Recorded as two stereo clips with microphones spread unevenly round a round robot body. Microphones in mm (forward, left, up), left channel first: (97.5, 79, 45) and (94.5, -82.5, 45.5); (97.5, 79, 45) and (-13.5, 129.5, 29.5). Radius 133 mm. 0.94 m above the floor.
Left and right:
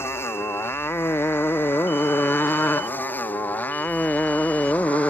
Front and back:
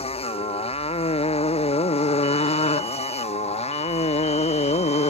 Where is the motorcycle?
15° left; by 5.1 s 5° left.